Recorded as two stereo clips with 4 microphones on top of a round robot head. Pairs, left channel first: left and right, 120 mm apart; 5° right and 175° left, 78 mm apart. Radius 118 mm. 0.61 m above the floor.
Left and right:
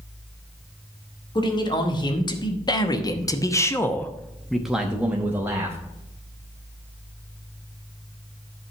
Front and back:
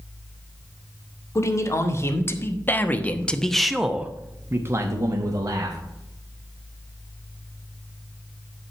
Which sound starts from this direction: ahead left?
A man speaking, at 1.4 s.